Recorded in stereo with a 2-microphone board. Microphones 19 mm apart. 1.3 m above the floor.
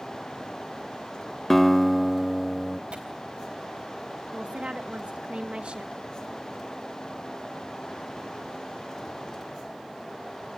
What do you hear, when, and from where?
1.5 s a guitar: 10° left (ahead or behind), 0.8 m
2.9 s tearing paper: 70° right (ahead or behind), 4 m
4.3 s a woman speaking: 80° right, 1.2 m